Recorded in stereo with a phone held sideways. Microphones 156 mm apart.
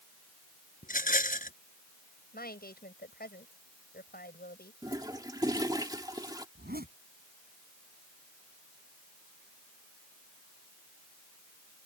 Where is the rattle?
60° left (ahead or behind).